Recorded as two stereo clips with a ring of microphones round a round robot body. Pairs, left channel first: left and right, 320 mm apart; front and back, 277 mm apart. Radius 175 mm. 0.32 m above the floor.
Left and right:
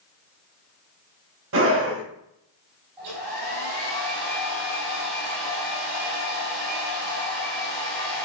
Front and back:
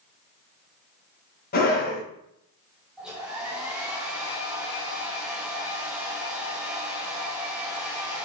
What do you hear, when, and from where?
1.5 s a scream: 50° right, 2 m
3.0 s a hair dryer: 90° right, 3 m